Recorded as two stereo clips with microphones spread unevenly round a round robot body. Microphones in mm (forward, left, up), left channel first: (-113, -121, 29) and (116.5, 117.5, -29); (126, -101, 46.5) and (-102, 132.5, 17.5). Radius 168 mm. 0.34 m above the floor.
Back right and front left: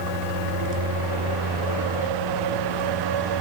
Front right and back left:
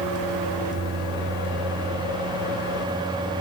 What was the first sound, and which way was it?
Only background noise.